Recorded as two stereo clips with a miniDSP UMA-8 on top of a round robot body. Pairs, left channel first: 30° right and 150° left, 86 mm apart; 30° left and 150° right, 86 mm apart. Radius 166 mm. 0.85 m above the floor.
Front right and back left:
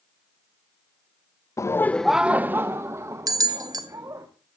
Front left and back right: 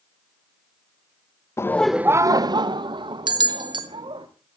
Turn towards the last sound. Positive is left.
turn(degrees=-170)